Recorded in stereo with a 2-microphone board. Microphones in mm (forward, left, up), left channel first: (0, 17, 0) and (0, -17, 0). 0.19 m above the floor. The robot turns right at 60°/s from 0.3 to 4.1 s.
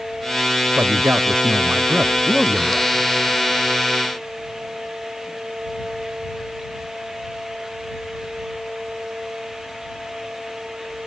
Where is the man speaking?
105° right; by 2.9 s 25° left.